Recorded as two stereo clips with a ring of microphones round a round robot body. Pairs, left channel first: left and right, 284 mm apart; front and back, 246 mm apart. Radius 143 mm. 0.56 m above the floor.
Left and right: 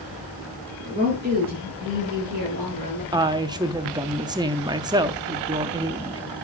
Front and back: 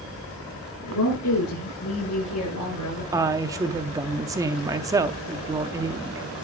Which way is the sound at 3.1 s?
135° right.